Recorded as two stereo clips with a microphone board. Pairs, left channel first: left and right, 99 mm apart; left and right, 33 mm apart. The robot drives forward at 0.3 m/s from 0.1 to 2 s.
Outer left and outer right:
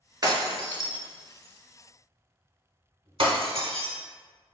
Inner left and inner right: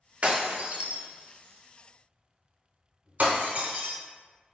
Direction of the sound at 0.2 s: 45° right (ahead or behind).